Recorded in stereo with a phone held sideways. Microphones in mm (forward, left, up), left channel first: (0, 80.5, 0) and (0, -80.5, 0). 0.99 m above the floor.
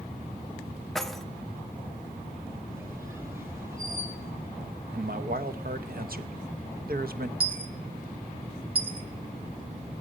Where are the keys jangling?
Centre (ahead or behind), 0.7 m.